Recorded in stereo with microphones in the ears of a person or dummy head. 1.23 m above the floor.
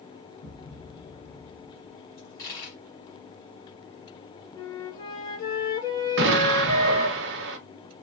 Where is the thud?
55° left (ahead or behind), 1.4 m.